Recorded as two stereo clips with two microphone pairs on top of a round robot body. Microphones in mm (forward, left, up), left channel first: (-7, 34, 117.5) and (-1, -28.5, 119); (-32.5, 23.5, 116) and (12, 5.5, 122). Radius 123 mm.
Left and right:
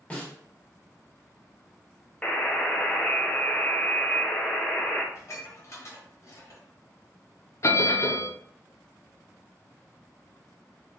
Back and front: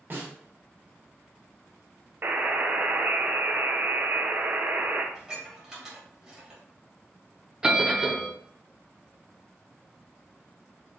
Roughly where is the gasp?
I don't hear a gasp.